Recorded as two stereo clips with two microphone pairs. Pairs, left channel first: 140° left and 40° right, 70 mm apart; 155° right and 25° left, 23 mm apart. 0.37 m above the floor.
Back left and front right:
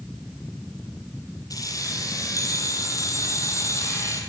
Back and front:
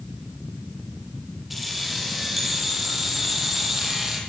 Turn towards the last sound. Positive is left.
turn(degrees=95)